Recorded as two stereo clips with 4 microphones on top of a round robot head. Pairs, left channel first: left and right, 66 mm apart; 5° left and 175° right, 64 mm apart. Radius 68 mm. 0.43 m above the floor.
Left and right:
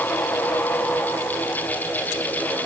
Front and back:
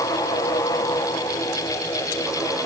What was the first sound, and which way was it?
Only background noise.